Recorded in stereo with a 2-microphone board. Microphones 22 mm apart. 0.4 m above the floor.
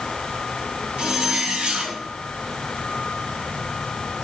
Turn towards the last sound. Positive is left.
turn(degrees=-75)  # may be behind; listen again after turning